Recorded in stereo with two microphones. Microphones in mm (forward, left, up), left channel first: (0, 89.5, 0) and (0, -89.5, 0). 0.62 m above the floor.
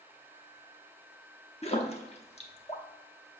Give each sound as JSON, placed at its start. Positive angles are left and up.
{"t": 1.6, "sound": "a splash", "side_deg": 35, "distance_m": 0.9}